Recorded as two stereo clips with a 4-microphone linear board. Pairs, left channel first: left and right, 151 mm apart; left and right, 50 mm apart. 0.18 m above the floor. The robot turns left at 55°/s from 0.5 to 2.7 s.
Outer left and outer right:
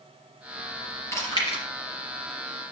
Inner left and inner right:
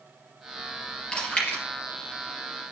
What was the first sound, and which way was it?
Chewing, 20° left (ahead or behind).